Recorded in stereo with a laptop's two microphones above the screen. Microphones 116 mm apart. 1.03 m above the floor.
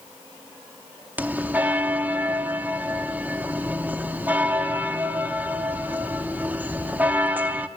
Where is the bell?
15° right (ahead or behind), 0.8 m.